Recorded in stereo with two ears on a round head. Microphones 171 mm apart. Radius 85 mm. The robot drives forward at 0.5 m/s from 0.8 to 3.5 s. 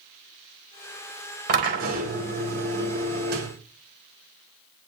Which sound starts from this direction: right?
A drill, at 1.5 s.